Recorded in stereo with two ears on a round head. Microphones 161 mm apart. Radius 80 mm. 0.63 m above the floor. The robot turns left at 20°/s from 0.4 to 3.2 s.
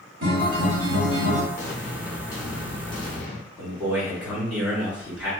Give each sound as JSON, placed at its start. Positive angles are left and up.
{"t": 0.2, "sound": "a guitar", "side_deg": -60, "distance_m": 1.5}
{"t": 1.6, "sound": "an explosion", "azimuth_deg": 150, "distance_m": 0.7}
{"t": 3.6, "sound": "a man speaking", "side_deg": -10, "distance_m": 1.6}